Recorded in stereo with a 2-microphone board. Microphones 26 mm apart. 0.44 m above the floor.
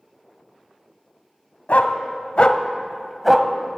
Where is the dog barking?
75° left (ahead or behind), 0.8 m; by 3.5 s 20° right (ahead or behind), 0.7 m.